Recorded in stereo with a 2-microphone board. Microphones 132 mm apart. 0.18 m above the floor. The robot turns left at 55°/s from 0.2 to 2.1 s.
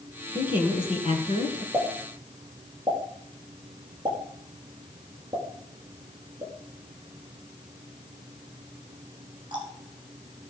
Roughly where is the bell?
I don't hear a bell.